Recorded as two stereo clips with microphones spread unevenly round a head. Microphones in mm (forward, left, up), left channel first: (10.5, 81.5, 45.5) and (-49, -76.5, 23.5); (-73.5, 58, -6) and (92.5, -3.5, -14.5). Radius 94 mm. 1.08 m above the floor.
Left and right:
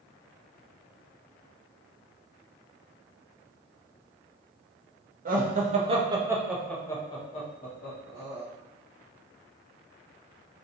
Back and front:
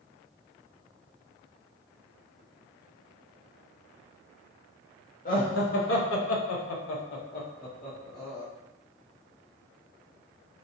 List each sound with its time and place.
5.2 s laughter: 150° right, 1.0 m; by 8.4 s 100° left, 1.3 m